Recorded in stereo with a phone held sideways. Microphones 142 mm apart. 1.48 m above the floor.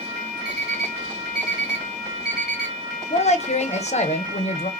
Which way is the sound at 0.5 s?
5° right (ahead or behind).